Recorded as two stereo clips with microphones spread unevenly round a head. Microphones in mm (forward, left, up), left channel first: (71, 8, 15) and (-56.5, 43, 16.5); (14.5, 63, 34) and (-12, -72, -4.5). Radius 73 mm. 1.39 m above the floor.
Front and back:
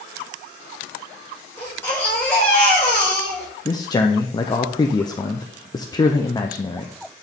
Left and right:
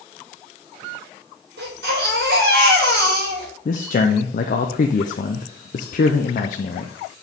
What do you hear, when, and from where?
1.6 s a baby crying: 90° right, 4 m
3.6 s a man speaking: 40° left, 0.7 m